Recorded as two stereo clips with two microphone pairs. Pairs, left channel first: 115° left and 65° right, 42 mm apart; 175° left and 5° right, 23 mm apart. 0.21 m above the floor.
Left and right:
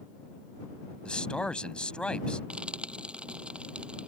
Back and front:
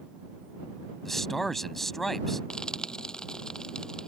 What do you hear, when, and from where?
1.1 s a man speaking: 120° left
2.5 s frying: 130° right